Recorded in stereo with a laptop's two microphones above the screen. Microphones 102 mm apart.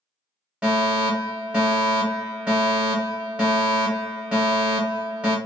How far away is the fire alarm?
About 1.1 m.